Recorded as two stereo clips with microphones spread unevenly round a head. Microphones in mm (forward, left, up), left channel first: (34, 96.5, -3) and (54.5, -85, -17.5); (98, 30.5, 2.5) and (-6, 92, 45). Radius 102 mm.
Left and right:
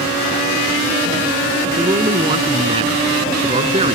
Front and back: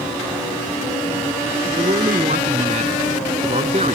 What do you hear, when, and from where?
1.8 s a man speaking: 155° right; by 4.0 s 150° right